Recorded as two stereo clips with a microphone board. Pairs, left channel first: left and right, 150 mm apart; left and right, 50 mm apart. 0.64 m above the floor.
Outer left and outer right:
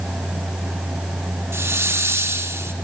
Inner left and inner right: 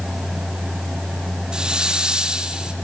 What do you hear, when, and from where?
1.5 s a hiss: 15° right (ahead or behind), 1.2 m